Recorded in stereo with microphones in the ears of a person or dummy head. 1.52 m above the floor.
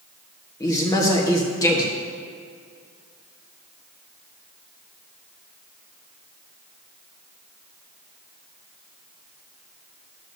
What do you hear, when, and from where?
0.6 s a man speaking: 20° left (ahead or behind), 1.1 m